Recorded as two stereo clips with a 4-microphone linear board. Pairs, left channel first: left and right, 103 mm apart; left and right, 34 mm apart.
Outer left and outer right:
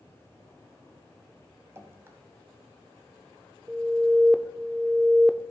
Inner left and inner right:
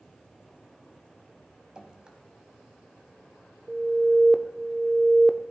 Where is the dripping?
25° right (ahead or behind), 1.0 m.